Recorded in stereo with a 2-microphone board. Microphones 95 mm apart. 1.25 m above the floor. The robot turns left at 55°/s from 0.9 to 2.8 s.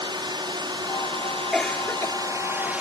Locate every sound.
0.0 s a drone: 50° right (ahead or behind); by 2.8 s 15° right (ahead or behind)
1.5 s a cough: 175° left; by 2.2 s 140° left